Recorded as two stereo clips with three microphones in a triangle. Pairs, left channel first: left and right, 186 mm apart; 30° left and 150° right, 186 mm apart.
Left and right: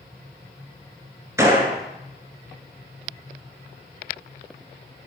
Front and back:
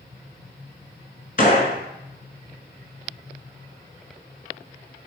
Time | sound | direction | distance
1.4 | a gunshot | 15° right | 0.7 m